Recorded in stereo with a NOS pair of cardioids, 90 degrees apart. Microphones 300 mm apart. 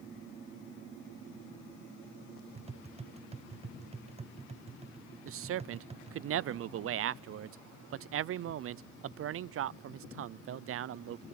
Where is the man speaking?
50° right, 0.5 m.